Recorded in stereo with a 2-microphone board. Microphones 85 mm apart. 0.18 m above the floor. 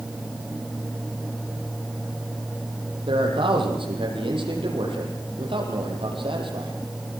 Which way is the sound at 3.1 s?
75° right (ahead or behind).